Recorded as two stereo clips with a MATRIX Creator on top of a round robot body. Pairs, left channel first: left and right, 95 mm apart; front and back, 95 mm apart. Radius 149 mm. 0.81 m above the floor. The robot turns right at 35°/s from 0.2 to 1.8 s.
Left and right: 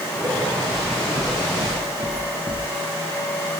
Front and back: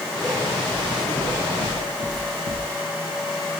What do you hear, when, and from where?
0.7 s footsteps: 105° right, 2.0 m; by 2.6 s 30° right, 3.5 m